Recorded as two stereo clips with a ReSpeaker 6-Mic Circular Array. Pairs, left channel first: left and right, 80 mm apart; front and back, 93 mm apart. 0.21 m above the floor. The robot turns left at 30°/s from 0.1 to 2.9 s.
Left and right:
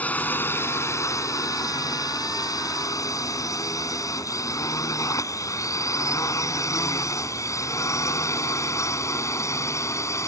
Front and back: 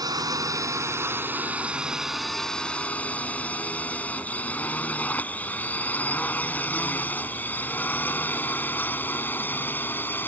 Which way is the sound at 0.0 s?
155° left.